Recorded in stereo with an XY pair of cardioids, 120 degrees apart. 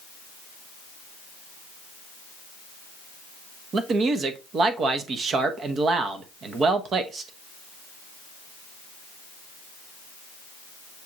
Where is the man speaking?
45° right, 0.8 m.